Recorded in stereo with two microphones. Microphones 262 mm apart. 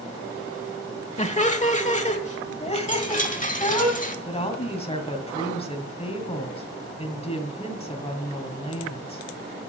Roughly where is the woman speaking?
Left.